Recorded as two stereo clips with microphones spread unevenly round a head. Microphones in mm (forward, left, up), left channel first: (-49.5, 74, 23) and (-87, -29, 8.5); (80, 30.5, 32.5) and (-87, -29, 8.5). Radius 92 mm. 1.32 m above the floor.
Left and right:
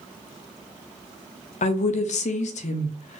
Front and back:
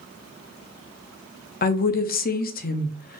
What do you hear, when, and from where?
1.6 s a woman speaking: 60° left, 0.5 m